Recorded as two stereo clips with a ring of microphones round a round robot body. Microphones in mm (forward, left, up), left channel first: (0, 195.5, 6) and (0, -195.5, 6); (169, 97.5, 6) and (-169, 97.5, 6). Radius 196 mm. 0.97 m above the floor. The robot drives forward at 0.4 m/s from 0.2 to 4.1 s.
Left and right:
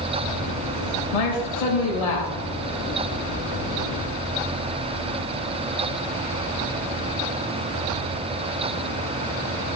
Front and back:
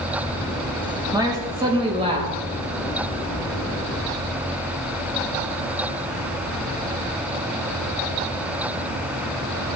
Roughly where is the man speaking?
Left.